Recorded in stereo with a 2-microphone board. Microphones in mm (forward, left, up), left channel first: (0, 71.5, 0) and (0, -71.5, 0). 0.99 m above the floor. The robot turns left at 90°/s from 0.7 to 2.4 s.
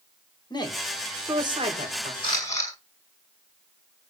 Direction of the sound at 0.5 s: 35° left (ahead or behind).